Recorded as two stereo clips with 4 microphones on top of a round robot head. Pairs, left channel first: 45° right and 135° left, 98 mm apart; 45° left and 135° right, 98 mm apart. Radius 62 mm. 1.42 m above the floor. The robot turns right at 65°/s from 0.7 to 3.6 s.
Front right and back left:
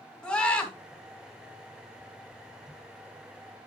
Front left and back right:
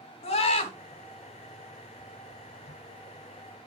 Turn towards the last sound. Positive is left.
turn(degrees=-135)